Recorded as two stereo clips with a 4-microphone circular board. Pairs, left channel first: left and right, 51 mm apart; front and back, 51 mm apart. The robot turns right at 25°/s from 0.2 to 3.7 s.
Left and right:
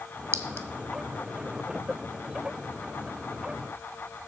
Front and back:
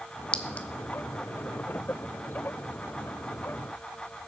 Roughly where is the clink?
Ahead right.